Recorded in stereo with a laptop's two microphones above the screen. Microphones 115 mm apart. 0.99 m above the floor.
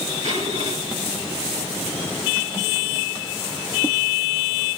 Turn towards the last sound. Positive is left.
turn(degrees=-75)  # may be behind; listen again after turning